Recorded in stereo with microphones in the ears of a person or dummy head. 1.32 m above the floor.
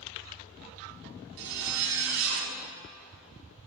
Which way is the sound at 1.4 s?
65° right (ahead or behind).